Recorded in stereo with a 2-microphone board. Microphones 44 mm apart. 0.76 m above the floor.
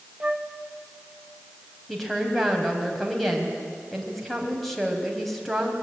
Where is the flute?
25° right (ahead or behind), 1.2 m.